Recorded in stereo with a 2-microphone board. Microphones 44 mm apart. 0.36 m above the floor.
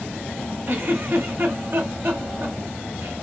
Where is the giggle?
55° right (ahead or behind), 1.2 m.